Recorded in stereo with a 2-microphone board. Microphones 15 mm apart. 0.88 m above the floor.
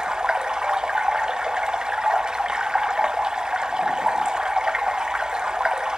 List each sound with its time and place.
0.0 s running water: 70° right (ahead or behind), 0.7 m